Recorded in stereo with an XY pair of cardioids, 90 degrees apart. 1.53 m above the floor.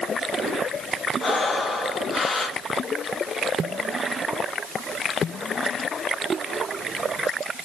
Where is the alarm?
I don't hear an alarm.